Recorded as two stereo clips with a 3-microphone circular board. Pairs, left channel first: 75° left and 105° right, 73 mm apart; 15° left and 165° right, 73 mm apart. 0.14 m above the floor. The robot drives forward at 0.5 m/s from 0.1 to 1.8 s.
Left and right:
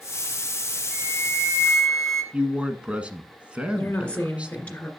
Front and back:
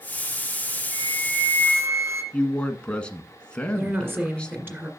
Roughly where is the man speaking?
Ahead right.